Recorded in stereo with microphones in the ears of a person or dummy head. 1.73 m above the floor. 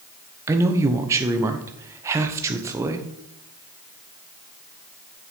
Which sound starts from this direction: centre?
A man speaking, at 0.5 s.